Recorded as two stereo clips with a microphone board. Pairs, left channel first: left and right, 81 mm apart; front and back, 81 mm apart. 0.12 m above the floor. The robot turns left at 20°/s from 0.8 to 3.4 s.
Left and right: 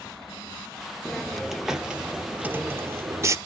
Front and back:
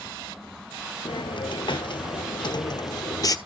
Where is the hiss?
5° left, 0.8 m; by 3.4 s 40° right, 0.8 m.